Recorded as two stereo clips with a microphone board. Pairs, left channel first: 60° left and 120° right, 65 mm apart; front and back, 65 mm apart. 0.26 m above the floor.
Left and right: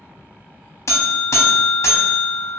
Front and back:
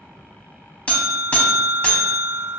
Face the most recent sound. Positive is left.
turn(degrees=60)